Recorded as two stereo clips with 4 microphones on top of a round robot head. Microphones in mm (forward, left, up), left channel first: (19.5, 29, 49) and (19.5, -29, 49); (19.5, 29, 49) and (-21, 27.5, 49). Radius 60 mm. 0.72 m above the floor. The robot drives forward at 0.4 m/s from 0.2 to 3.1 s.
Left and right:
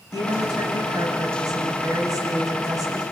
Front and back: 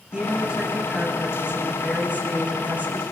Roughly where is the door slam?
No door slam in this recording.